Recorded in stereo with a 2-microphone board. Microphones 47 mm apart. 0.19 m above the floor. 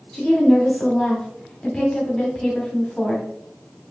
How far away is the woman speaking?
About 1.0 m.